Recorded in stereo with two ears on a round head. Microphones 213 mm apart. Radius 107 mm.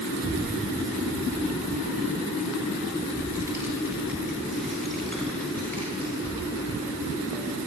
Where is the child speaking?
45° right (ahead or behind), 4 m; by 7.6 s 20° left (ahead or behind), 5 m.